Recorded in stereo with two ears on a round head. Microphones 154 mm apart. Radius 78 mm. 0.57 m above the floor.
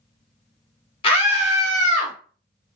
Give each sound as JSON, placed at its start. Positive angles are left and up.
{"t": 1.0, "sound": "a scream", "side_deg": 30, "distance_m": 1.0}